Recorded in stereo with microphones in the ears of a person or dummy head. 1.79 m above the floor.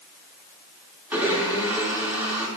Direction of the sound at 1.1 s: 5° right (ahead or behind).